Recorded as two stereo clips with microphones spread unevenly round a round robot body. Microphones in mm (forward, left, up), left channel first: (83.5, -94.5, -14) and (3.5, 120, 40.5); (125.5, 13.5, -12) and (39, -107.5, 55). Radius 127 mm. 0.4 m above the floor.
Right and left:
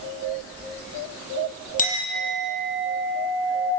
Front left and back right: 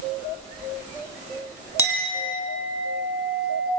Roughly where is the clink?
Ahead.